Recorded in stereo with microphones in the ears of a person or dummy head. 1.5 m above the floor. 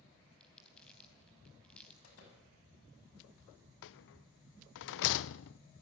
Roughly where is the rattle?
Left.